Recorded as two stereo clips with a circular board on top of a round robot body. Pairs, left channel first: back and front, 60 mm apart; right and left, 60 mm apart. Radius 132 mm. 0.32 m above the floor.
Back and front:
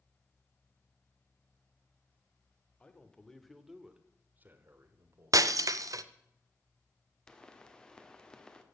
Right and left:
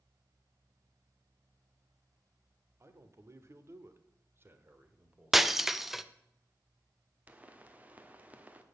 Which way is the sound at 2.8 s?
120° left.